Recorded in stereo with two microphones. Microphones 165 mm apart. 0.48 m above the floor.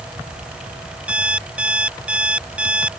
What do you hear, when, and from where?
1.1 s an alarm clock: 5° right (ahead or behind)